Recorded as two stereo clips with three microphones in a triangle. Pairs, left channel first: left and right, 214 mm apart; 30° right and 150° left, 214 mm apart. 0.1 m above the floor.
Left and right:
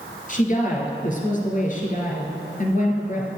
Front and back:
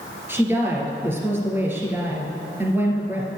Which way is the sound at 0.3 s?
75° left.